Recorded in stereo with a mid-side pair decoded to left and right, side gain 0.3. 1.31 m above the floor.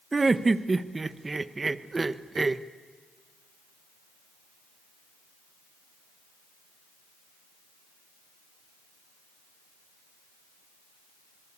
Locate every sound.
0.1 s laughter: 35° right, 1.1 m